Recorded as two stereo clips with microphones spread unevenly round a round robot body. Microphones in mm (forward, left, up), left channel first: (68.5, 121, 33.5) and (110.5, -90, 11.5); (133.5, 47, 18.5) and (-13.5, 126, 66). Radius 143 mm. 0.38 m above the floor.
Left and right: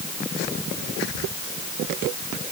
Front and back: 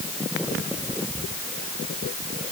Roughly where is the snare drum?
No snare drum in this recording.